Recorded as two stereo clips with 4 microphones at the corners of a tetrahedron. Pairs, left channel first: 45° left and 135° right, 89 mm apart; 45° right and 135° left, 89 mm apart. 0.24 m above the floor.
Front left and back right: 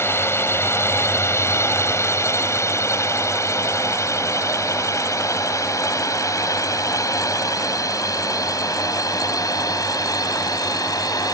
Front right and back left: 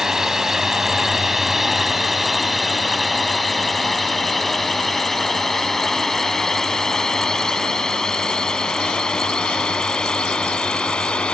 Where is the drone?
55° left; by 11.3 s 30° left.